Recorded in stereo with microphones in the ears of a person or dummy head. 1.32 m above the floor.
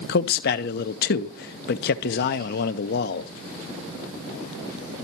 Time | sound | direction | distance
0.1 | a man speaking | 50° left (ahead or behind) | 0.5 m